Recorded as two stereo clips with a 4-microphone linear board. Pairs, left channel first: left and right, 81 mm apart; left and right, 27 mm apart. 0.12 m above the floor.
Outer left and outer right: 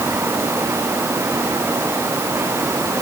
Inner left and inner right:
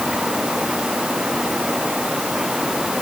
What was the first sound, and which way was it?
Only background noise.